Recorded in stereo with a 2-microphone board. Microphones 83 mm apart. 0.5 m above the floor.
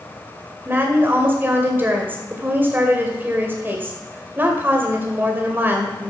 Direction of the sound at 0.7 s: 25° right (ahead or behind).